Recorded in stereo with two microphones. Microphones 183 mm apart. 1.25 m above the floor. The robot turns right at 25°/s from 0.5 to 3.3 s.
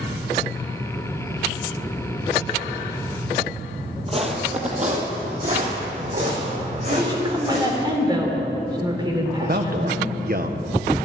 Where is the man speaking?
50° right (ahead or behind), 1.0 m.